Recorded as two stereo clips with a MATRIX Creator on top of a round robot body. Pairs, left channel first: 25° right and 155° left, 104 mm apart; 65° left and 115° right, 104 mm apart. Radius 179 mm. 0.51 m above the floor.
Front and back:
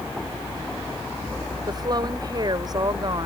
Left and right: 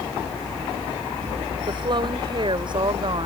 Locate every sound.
1.7 s a woman speaking: 155° right